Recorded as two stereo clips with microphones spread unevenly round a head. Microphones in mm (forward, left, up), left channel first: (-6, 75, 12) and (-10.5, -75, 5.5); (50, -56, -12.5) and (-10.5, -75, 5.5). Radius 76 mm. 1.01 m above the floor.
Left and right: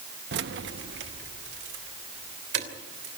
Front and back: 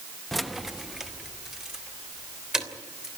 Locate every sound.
0.3 s keys jangling: 70° right, 0.7 m; by 3.1 s 85° right, 3.5 m